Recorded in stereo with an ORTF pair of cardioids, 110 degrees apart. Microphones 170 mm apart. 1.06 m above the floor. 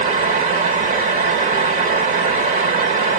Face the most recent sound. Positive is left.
turn(degrees=-50)